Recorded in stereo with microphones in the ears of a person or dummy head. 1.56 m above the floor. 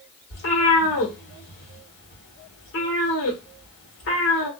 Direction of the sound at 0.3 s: 45° left (ahead or behind).